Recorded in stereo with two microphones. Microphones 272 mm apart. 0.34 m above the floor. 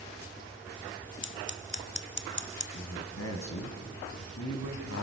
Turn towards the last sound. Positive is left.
turn(degrees=65)  # may be behind; listen again after turning